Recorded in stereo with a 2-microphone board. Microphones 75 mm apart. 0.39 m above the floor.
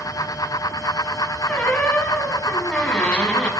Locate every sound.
1.5 s a squeak: 15° left (ahead or behind), 0.8 m